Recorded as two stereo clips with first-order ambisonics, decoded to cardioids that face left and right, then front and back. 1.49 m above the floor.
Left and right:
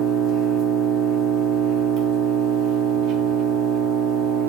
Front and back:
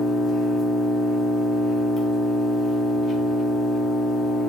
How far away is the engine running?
About 1.8 m.